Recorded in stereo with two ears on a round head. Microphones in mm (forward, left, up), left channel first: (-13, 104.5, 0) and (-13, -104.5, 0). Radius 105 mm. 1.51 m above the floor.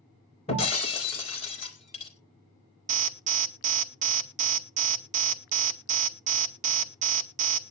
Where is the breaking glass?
25° left (ahead or behind), 3.5 m.